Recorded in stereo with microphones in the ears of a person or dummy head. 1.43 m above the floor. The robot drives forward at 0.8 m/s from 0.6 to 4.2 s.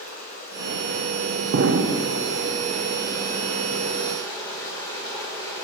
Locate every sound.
0.0 s running water: 50° left (ahead or behind), 1.5 m; by 5.6 s 15° left (ahead or behind), 4 m
1.5 s an explosion: 65° right (ahead or behind), 0.6 m; by 2.1 s 40° right (ahead or behind), 0.8 m